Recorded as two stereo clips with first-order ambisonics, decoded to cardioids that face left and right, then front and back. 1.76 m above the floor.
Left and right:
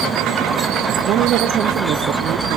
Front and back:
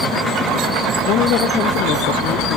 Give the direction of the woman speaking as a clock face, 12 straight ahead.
1 o'clock.